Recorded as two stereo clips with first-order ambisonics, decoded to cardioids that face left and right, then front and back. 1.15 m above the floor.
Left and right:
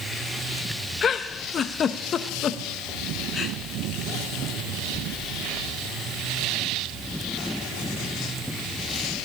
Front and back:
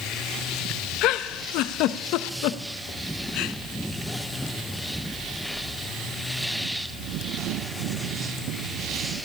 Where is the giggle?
25° left, 0.6 m.